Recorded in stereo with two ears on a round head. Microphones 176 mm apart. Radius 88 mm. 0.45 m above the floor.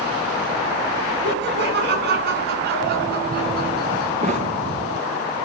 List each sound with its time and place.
1.2 s laughter: 60° right (ahead or behind), 4 m; by 4.1 s 55° right (ahead or behind), 5.5 m
4.2 s a thud: 35° right (ahead or behind), 2.5 m